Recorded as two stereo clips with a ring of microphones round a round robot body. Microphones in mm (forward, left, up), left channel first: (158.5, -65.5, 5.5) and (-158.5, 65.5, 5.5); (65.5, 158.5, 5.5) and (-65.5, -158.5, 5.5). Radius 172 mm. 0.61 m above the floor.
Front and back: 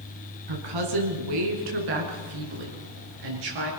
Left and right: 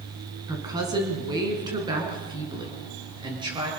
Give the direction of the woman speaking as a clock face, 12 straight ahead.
6 o'clock.